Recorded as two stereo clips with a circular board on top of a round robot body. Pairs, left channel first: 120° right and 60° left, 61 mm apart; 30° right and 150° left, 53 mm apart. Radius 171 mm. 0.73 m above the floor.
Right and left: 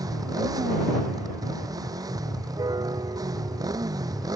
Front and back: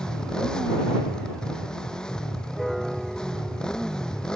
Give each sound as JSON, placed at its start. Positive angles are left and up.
{"t": 0.0, "sound": "a motorcycle", "azimuth_deg": 45}
{"t": 2.6, "sound": "a piano", "azimuth_deg": 60}